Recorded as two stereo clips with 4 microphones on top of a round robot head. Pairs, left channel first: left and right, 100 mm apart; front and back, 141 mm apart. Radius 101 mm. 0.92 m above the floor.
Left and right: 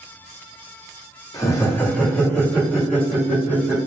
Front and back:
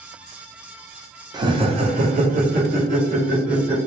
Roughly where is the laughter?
Behind left.